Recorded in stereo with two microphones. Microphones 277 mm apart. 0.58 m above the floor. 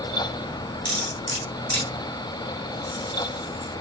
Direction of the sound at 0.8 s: 65° right (ahead or behind).